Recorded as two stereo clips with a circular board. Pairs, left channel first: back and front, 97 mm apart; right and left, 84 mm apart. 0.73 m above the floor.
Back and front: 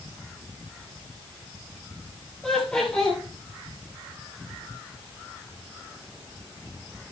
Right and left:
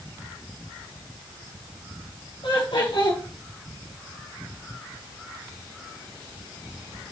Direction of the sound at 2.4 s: 100° right.